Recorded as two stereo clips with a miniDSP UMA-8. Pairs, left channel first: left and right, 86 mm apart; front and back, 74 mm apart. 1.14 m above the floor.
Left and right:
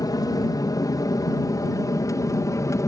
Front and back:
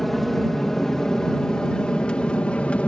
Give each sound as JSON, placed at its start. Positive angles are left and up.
{"t": 0.0, "sound": "an aircraft", "azimuth_deg": 90}